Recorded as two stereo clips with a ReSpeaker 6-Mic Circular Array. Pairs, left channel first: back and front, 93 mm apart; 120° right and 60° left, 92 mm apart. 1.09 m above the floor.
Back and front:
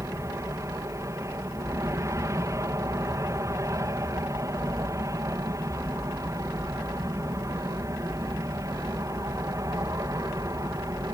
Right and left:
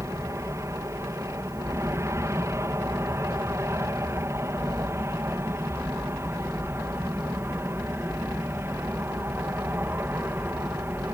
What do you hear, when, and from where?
0.0 s an aircraft: 30° left; by 11.2 s 10° left